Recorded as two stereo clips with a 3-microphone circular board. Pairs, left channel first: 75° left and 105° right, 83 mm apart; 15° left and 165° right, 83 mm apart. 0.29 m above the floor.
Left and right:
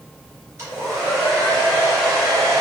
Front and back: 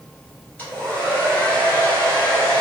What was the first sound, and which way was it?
A hair dryer, 55° right.